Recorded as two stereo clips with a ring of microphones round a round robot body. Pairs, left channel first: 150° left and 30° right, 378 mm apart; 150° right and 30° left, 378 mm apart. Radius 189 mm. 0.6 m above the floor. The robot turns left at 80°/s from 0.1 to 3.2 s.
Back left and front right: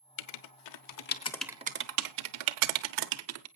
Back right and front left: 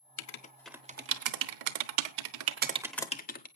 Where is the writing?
160° left, 1.0 m; by 3.5 s 80° right, 1.0 m.